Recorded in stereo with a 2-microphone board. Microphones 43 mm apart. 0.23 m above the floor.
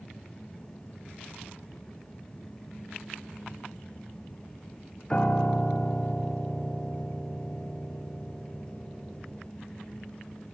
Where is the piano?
20° left (ahead or behind), 0.7 m.